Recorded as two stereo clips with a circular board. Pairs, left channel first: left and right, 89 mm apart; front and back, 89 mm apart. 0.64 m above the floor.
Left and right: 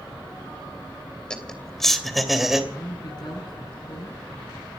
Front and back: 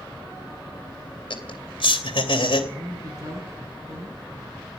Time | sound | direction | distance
1.3 | laughter | 10° left | 3 m
2.7 | a woman speaking | 130° left | 7.5 m